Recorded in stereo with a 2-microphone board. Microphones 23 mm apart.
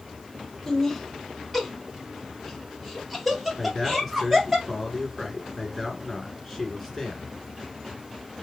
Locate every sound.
0.7 s laughter: 10° left (ahead or behind), 1.1 m; by 4.6 s 10° right (ahead or behind), 2.5 m
3.6 s a man speaking: 10° left (ahead or behind), 1.8 m